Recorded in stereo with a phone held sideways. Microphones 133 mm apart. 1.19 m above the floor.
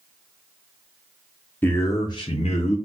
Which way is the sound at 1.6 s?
15° left (ahead or behind).